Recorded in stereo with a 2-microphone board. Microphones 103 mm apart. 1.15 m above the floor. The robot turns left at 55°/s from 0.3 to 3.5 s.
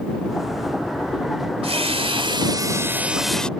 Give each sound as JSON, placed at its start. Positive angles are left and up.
{"t": 1.6, "sound": "hammering", "azimuth_deg": -90}